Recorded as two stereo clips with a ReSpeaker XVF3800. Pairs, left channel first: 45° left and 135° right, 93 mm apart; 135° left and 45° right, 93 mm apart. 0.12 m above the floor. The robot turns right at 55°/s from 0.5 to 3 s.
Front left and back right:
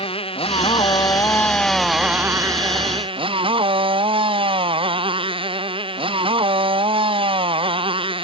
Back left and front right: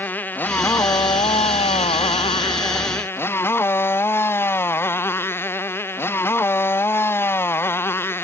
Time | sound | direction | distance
0.0 | a motorcycle | 65° left | ?